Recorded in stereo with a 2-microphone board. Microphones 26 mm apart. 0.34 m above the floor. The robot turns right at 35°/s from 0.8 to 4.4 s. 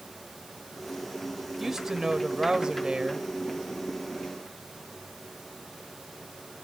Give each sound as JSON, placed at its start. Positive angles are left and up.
{"t": 1.6, "sound": "a woman speaking", "azimuth_deg": -155, "distance_m": 1.4}